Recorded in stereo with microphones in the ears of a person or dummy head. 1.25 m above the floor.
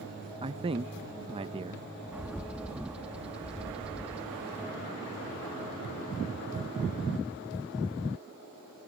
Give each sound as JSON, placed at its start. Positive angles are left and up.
{"t": 0.4, "sound": "a man speaking", "side_deg": -25}
{"t": 2.1, "sound": "a bird", "side_deg": -5}